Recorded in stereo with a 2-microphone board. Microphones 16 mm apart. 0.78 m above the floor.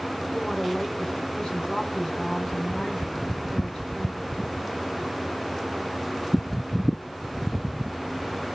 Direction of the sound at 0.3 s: 70° left (ahead or behind).